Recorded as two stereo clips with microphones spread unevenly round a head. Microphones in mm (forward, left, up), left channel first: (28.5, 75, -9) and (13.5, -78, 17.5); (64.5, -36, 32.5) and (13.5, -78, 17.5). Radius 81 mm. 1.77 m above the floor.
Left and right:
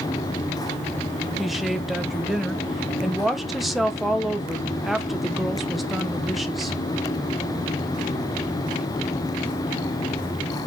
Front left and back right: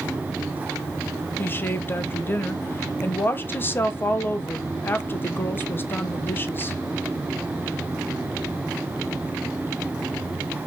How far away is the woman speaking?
About 1.2 m.